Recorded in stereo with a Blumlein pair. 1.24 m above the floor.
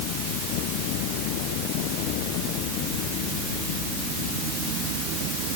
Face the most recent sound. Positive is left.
No sound to turn to.